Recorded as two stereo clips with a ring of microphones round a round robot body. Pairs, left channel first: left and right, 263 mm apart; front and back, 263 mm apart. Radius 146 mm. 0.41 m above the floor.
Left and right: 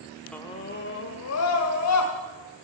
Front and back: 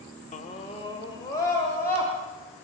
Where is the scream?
10° left, 0.8 m; by 2.1 s 85° left, 2.5 m.